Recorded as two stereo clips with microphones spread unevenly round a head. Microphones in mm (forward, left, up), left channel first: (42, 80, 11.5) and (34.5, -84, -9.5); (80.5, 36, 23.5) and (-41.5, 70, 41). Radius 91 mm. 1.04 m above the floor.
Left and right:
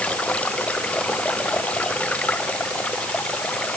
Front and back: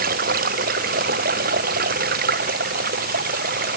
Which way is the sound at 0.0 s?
170° left.